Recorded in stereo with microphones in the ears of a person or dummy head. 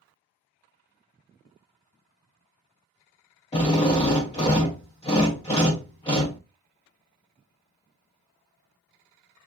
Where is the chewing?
I don't hear chewing.